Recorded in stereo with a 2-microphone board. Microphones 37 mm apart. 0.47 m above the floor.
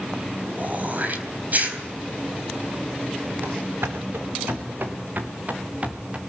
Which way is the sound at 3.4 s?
70° right (ahead or behind).